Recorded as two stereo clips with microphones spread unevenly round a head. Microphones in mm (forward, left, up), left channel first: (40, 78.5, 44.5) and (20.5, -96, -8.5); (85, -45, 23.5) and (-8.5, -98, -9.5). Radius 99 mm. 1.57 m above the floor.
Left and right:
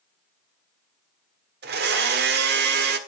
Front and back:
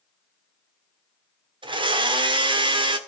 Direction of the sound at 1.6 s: 120° right.